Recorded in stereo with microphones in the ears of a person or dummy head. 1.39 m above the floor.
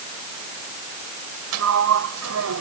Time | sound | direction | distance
1.5 | a sliding door | 80° right | ?